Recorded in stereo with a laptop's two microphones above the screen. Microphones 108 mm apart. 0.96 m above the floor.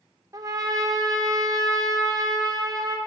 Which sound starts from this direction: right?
A trumpet, at 0.3 s.